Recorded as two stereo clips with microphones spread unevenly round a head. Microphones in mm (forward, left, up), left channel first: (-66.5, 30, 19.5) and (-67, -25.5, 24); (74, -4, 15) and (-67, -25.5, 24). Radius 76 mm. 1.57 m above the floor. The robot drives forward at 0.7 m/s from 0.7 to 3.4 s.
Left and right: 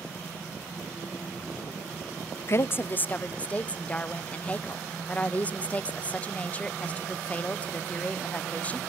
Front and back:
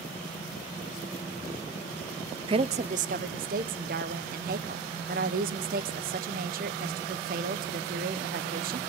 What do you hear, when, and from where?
2.5 s a woman speaking: 130° left, 0.7 m; by 8.8 s 155° left, 1.2 m